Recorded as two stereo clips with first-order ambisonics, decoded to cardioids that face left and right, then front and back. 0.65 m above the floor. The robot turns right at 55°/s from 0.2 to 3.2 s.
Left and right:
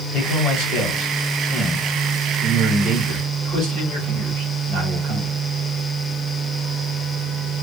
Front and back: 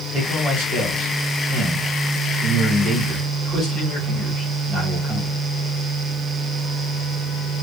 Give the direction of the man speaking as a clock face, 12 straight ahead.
8 o'clock.